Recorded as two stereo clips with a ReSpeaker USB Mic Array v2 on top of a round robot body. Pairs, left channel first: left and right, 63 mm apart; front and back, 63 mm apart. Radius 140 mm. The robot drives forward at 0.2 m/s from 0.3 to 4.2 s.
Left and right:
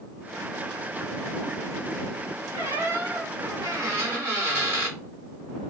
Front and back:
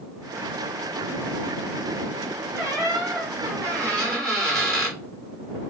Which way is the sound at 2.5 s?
130° right.